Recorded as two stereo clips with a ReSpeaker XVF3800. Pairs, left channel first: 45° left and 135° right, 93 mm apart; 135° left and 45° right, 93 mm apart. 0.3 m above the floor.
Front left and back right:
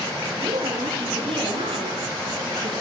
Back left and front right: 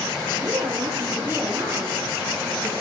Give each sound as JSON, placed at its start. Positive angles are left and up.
{"t": 0.3, "sound": "a woman speaking", "azimuth_deg": -105, "distance_m": 7.5}